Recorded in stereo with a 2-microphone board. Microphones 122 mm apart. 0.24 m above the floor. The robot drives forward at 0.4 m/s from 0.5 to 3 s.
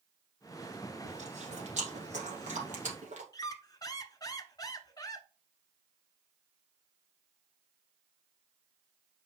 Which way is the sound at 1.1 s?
65° right (ahead or behind).